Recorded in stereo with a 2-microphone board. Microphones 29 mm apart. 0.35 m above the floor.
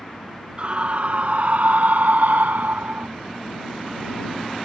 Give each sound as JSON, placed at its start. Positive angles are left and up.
{"t": 0.6, "sound": "a scream", "side_deg": -35}